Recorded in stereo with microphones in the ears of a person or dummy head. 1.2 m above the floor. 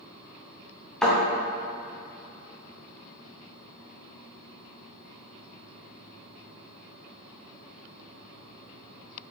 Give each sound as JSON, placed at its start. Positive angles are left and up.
{"t": 1.0, "sound": "a thud", "side_deg": -5, "distance_m": 2.0}